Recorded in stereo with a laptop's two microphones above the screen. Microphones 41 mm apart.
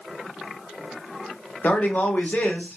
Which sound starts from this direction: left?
A man speaking, at 1.6 s.